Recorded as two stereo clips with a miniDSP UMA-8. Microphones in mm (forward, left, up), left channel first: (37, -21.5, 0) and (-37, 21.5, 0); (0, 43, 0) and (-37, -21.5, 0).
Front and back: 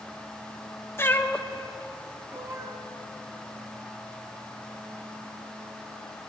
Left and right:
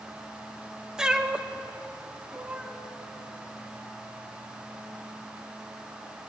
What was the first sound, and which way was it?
A cat meowing, 50° right.